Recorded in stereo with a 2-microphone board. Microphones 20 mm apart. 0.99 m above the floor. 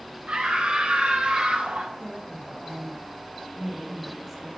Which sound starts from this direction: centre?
A woman speaking, at 2.0 s.